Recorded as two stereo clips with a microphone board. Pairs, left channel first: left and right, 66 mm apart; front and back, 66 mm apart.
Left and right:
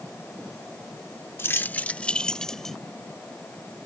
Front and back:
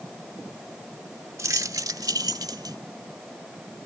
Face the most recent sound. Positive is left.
turn(degrees=175)